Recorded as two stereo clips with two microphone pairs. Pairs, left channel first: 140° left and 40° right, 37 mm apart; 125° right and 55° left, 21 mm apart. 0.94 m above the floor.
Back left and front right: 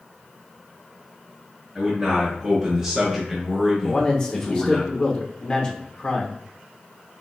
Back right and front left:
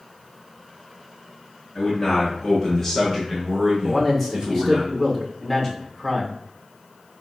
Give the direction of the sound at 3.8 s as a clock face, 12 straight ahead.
6 o'clock.